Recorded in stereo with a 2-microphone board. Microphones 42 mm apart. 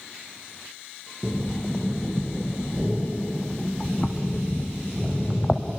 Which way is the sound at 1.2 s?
15° left (ahead or behind).